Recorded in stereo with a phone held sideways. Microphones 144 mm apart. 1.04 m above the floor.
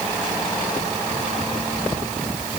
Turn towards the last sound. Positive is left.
No sound to turn to.